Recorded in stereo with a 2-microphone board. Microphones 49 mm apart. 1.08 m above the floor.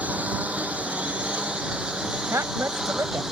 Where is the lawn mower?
30° right (ahead or behind); by 3.3 s 10° right (ahead or behind).